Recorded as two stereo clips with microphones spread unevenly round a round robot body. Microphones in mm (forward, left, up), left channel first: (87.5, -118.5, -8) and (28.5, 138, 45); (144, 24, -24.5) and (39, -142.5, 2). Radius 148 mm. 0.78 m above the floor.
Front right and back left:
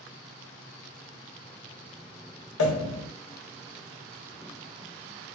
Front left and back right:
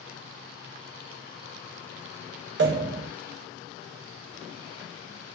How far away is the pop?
About 1.0 m.